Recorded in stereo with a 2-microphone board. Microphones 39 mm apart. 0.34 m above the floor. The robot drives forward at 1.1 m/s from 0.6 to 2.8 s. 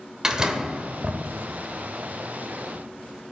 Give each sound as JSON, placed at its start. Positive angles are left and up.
{"t": 0.2, "sound": "a door slam", "side_deg": -20, "distance_m": 0.9}